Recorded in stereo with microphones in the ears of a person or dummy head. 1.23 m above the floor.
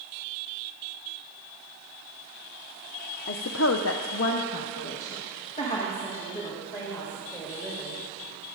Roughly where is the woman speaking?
Left.